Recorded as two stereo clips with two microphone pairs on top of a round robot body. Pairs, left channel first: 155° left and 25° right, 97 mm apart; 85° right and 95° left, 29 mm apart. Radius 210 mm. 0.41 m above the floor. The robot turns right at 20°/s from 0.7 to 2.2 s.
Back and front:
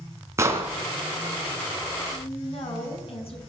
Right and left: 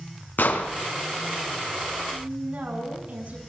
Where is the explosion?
85° right, 2.5 m.